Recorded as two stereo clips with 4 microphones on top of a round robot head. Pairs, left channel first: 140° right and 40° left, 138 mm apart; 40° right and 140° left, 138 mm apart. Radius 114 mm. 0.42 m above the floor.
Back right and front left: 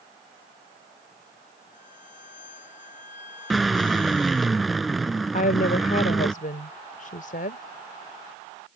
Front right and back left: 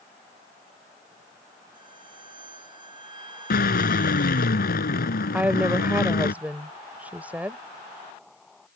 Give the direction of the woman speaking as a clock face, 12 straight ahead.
5 o'clock.